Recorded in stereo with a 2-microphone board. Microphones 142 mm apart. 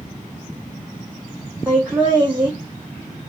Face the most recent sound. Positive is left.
turn(degrees=-10)  # may be behind; listen again after turning